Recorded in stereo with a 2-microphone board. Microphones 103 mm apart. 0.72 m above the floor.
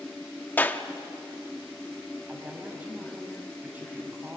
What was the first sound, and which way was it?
A clap, 20° left (ahead or behind).